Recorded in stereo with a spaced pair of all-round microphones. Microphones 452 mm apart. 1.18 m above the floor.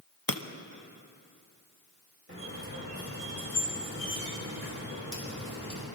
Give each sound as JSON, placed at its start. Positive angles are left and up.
{"t": 0.3, "sound": "breaking glass", "side_deg": 50, "distance_m": 0.7}
{"t": 2.3, "sound": "a squeak", "side_deg": -30, "distance_m": 4.0}